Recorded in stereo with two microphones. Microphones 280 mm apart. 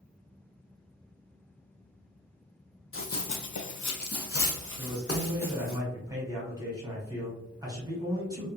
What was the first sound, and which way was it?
Running footsteps, 50° left (ahead or behind).